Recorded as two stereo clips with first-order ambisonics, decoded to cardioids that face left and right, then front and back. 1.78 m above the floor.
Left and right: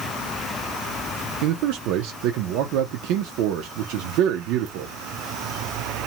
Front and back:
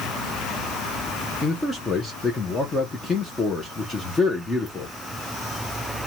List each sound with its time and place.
1.4 s a man speaking: 75° right, 0.6 m